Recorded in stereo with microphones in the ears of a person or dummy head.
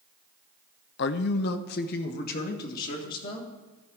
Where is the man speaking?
60° left (ahead or behind), 0.5 m; by 3.5 s 50° left (ahead or behind), 2 m.